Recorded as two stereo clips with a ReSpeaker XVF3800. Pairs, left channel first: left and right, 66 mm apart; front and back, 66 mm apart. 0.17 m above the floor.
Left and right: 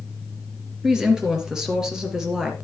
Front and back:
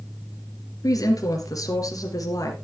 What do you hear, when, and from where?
0.8 s a woman speaking: 10° right, 3 m